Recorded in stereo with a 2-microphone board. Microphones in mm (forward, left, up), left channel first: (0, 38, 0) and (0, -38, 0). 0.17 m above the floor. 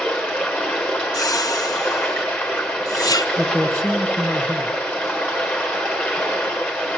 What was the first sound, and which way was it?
Running water, 10° left (ahead or behind).